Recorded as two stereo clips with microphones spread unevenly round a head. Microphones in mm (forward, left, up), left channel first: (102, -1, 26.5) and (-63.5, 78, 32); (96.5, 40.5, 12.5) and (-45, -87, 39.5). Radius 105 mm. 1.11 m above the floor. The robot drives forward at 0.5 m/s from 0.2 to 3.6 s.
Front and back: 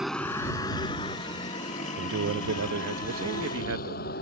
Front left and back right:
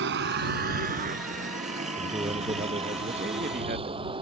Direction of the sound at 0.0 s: 120° right.